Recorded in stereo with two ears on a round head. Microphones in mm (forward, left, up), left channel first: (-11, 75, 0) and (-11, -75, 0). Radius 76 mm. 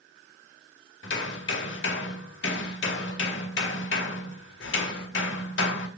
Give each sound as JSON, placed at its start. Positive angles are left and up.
{"t": 1.0, "sound": "hammering", "side_deg": 80, "distance_m": 2.0}